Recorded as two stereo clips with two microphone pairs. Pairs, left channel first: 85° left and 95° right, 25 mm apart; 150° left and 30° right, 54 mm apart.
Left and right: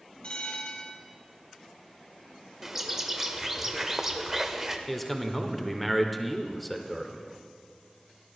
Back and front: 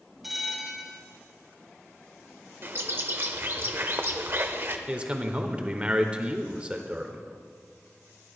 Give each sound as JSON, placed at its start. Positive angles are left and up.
{"t": 0.2, "sound": "a bell", "azimuth_deg": 55, "distance_m": 1.7}
{"t": 2.6, "sound": "a bird", "azimuth_deg": -25, "distance_m": 0.7}
{"t": 4.9, "sound": "a man speaking", "azimuth_deg": 5, "distance_m": 0.8}